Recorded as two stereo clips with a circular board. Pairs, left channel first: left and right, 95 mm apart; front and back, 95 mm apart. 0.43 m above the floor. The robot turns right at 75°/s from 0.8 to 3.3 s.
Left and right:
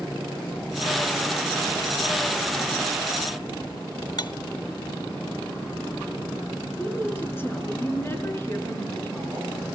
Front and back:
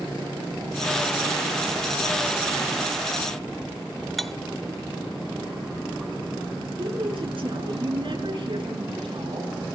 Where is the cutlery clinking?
90° left, 0.8 m.